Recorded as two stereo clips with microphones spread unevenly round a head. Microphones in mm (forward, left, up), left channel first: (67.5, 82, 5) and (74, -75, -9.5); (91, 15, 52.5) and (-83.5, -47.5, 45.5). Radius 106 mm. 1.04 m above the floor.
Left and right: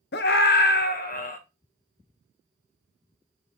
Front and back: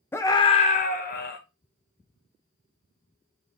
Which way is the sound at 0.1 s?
100° left.